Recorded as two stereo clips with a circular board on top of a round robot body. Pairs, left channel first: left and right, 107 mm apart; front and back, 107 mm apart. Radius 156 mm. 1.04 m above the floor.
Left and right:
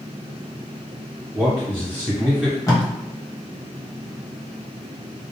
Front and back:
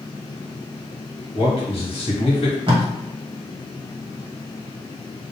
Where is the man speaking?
20° right, 1.2 m.